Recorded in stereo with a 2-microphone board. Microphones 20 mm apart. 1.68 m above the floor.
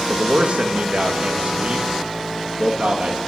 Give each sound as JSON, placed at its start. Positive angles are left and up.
{"t": 0.1, "sound": "a man speaking", "side_deg": -65, "distance_m": 2.0}